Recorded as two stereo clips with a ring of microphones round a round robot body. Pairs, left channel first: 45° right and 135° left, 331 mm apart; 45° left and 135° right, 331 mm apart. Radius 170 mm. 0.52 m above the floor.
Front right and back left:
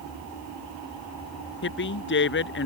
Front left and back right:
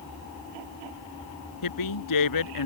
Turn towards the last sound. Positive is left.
turn(degrees=15)